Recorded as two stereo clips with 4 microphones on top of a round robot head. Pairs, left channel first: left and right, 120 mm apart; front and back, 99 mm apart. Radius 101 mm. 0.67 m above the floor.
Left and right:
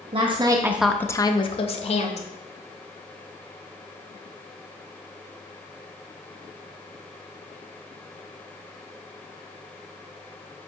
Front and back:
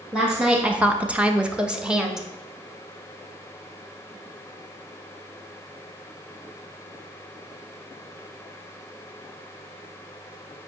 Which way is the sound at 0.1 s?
100° right.